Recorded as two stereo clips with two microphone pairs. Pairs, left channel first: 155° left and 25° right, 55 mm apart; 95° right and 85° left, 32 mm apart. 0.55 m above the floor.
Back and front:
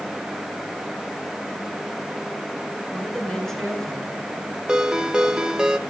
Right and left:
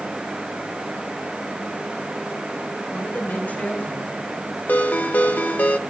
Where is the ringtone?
100° right, 0.9 m.